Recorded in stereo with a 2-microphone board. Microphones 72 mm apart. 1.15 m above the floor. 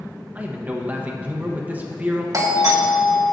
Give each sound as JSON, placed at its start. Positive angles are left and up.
{"t": 0.3, "sound": "a man speaking", "side_deg": -20, "distance_m": 1.0}
{"t": 2.3, "sound": "a doorbell", "side_deg": -50, "distance_m": 1.3}